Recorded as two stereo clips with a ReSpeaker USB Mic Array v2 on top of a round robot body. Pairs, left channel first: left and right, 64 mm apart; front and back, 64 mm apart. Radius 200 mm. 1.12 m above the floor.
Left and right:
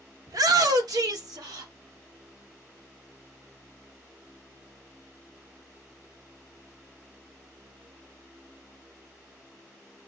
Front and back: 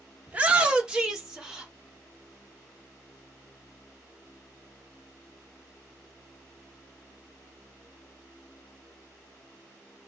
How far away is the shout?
About 1.2 m.